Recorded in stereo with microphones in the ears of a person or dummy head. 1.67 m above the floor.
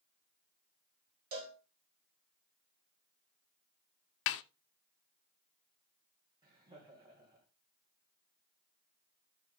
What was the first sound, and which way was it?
A cowbell, 40° right (ahead or behind).